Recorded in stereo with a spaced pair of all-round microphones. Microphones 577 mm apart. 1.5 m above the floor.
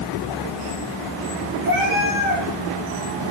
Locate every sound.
1.6 s a cat meowing: 50° left (ahead or behind), 6 m